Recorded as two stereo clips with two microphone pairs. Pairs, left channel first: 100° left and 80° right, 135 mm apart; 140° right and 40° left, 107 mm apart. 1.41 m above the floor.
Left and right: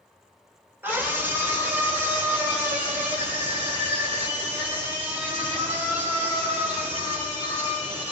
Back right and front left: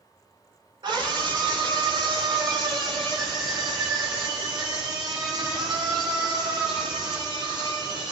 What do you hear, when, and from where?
0.8 s a scream: 5° right, 4 m; by 8.1 s straight ahead, 12 m